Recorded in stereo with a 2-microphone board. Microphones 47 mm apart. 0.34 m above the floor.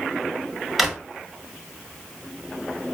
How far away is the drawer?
About 0.7 m.